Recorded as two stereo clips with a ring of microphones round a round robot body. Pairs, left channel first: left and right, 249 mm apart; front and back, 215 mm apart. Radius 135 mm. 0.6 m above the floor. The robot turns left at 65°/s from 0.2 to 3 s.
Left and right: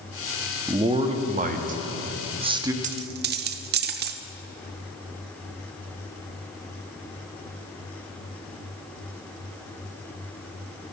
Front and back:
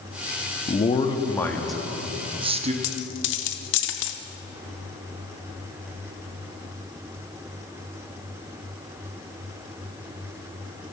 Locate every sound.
0.7 s a man speaking: 25° right, 1.0 m; by 2.7 s 155° right, 1.0 m
2.8 s a dropped coin: 30° right, 0.7 m; by 4.2 s 40° right, 0.7 m